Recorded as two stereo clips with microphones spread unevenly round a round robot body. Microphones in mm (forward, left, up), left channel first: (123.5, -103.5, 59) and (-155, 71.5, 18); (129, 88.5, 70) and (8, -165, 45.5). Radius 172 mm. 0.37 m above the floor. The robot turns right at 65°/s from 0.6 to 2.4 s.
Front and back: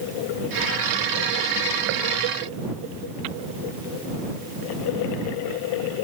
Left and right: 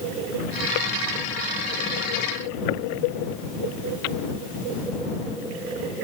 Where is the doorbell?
I don't hear a doorbell.